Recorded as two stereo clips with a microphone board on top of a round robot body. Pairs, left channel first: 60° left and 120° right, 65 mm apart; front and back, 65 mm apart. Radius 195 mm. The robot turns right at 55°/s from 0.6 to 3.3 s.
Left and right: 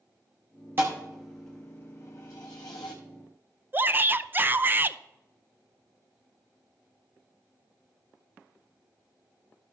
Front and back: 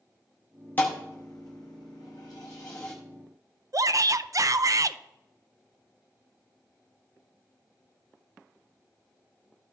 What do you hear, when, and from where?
0.8 s a thud: 60° right, 0.5 m; by 2.9 s 55° left, 0.5 m
3.7 s a shout: 175° right, 0.6 m